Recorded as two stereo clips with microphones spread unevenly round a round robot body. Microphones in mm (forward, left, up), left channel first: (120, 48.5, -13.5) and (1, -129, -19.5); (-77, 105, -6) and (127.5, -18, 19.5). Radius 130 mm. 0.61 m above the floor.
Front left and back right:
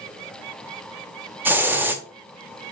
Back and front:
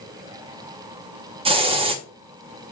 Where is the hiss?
70° right, 0.7 m.